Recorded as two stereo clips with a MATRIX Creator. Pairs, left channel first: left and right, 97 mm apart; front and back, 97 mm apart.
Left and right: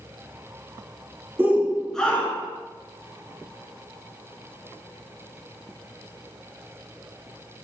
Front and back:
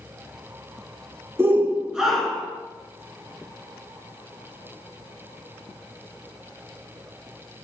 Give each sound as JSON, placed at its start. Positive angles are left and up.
{"t": 1.4, "sound": "a shout", "azimuth_deg": -140, "distance_m": 1.2}